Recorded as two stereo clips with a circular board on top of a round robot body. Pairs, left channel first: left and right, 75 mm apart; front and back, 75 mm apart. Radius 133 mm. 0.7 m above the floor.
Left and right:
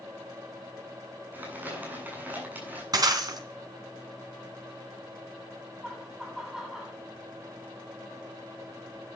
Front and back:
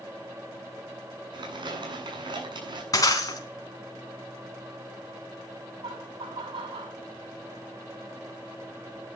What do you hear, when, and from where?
1.3 s crumpling: 155° right, 8.5 m
2.9 s breaking glass: 45° right, 3.5 m
5.8 s laughter: 175° right, 6 m